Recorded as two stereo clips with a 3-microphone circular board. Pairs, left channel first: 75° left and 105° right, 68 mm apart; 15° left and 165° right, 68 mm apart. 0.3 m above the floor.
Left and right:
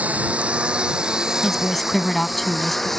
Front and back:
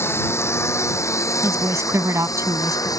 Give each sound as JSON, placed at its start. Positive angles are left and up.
{"t": 0.0, "sound": "a lawn mower", "azimuth_deg": -35}
{"t": 1.4, "sound": "a woman speaking", "azimuth_deg": 160}